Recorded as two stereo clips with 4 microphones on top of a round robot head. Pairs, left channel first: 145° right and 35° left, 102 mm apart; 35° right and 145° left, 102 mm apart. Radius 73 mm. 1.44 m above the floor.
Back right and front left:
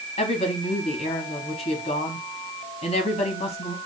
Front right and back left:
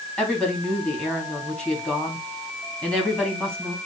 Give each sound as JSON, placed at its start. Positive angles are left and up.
{"t": 0.2, "sound": "a woman speaking", "azimuth_deg": -115, "distance_m": 3.0}